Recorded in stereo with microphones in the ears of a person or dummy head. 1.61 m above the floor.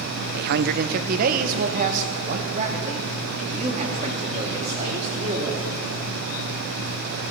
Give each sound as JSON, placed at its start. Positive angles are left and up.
{"t": 0.3, "sound": "a man speaking", "side_deg": -60, "distance_m": 0.6}